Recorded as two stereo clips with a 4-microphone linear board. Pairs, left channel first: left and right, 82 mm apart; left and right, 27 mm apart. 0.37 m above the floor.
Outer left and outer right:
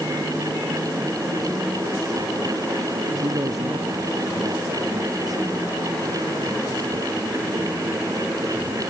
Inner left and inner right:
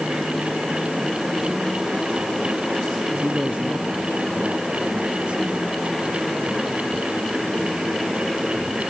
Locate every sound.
3.2 s a man speaking: 50° right (ahead or behind)